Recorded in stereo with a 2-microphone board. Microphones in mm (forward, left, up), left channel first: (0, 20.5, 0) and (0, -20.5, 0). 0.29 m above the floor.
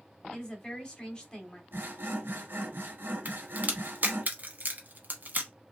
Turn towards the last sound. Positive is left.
turn(degrees=-50)  # may be behind; listen again after turning